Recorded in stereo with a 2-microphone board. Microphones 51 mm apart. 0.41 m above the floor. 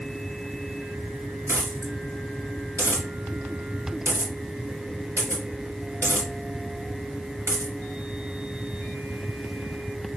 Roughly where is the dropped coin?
Right.